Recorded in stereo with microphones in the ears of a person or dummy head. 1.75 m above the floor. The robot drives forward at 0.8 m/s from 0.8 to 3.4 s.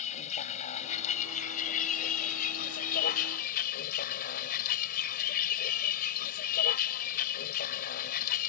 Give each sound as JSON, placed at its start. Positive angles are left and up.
{"t": 0.0, "sound": "a vehicle", "side_deg": 35}